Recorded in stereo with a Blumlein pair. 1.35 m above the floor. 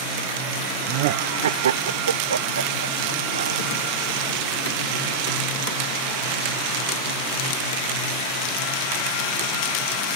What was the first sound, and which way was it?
Laughter, 40° right.